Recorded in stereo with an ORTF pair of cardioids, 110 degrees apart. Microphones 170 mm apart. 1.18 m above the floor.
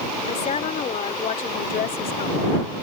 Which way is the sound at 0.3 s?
45° left.